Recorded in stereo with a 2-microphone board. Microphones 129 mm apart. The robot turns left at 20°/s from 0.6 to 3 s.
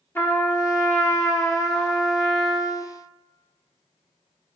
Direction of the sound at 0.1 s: 20° left (ahead or behind).